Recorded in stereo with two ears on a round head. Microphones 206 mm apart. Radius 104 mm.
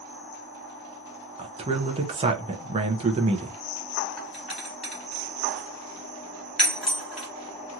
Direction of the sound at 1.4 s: 25° right (ahead or behind).